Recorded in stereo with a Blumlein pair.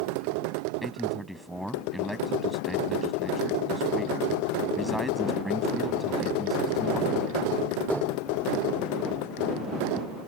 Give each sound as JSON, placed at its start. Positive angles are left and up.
{"t": 0.8, "sound": "a man speaking", "azimuth_deg": -5}